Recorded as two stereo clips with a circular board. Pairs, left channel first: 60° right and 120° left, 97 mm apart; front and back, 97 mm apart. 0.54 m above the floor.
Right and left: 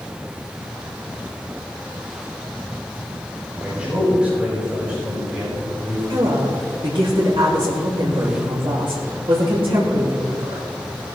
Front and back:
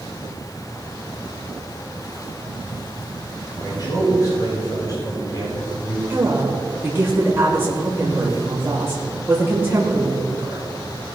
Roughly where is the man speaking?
Ahead left.